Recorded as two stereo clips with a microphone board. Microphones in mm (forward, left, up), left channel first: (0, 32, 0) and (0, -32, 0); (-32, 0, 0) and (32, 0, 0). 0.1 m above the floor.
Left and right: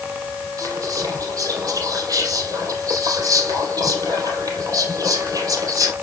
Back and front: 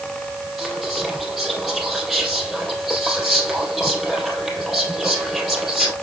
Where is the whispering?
90° right, 3 m.